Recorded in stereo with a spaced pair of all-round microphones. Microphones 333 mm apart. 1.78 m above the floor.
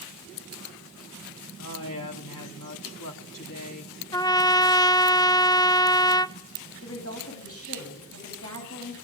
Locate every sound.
1.6 s a woman speaking: 70° left (ahead or behind), 3.5 m
4.1 s a trumpet: 10° left (ahead or behind), 0.6 m
6.8 s a woman speaking: 45° left (ahead or behind), 10 m